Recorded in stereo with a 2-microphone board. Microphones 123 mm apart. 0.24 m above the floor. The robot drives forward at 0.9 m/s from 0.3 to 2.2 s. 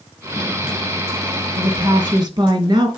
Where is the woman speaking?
45° right (ahead or behind), 1.6 m; by 2.9 s 35° right (ahead or behind), 1.8 m.